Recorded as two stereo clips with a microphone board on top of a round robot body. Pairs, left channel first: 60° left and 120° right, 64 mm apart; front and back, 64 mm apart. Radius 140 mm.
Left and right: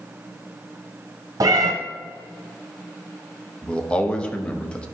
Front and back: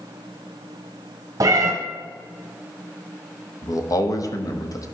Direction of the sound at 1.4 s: 145° right.